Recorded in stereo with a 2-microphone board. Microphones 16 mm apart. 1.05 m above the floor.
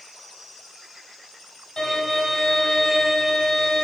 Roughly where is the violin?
Left.